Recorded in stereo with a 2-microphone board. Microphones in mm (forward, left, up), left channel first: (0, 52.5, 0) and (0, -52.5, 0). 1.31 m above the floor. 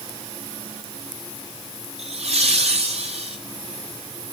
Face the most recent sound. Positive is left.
turn(degrees=-80)